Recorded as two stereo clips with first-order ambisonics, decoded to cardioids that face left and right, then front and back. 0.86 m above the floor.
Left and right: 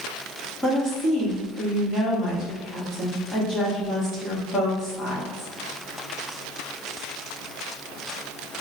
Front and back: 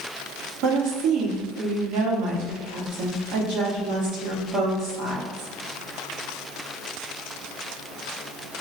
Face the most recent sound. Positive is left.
turn(degrees=170)